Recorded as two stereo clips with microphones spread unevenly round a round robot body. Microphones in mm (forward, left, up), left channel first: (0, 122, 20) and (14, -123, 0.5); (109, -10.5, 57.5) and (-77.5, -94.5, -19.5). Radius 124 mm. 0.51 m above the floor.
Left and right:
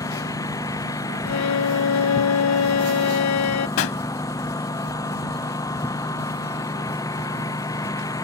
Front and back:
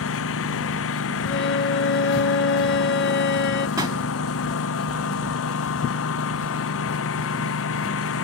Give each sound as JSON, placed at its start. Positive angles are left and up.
{"t": 0.0, "sound": "a lawn mower", "azimuth_deg": 15}
{"t": 1.2, "sound": "a violin", "azimuth_deg": 75}
{"t": 3.8, "sound": "a pop", "azimuth_deg": 115}